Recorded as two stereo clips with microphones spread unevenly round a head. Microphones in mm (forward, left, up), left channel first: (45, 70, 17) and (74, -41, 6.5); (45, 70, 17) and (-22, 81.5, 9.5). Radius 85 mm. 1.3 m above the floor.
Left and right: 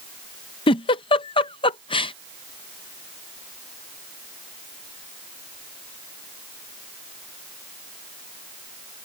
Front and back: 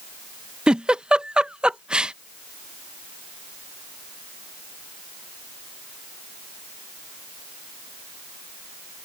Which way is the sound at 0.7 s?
90° left.